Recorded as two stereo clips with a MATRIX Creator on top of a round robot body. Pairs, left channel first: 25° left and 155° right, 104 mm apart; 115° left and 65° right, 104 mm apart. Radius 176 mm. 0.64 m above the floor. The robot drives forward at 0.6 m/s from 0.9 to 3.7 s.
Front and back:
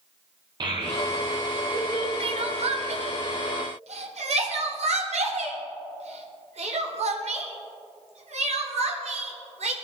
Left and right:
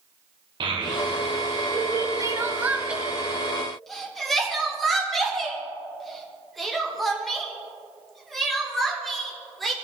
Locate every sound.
0.6 s a child speaking: 110° right, 1.6 m; by 2.1 s 130° right, 2.0 m
2.2 s crying: 125° right, 0.6 m; by 9.7 s 160° right, 1.4 m